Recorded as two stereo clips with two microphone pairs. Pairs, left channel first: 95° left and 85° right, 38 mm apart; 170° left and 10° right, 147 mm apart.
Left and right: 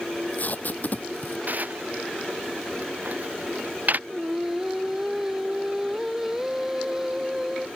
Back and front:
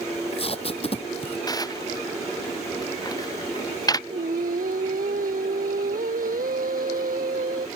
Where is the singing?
10° right.